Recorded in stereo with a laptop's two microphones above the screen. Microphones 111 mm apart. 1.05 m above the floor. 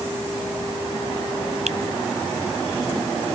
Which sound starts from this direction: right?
A finger snap, at 1.7 s.